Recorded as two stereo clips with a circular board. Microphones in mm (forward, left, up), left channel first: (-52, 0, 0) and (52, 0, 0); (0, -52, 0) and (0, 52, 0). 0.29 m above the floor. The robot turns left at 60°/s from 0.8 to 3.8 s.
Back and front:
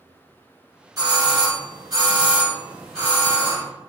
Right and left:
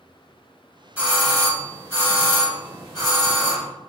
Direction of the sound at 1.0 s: 20° left.